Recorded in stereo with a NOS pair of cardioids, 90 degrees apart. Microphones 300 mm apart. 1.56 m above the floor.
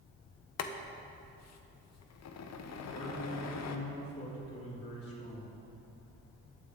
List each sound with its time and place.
0.6 s boiling: 60° left, 1.0 m
2.9 s a man speaking: 50° left, 3.5 m